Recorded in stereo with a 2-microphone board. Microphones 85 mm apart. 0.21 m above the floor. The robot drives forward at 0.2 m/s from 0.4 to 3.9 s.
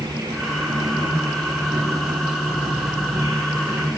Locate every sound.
0.0 s an insect: 50° right (ahead or behind), 7.5 m